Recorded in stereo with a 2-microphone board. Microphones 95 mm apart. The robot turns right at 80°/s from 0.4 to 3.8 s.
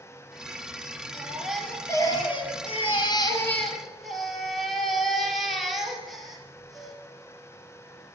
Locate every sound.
1.1 s a baby crying: 30° right, 3.5 m; by 7.0 s straight behind, 3.5 m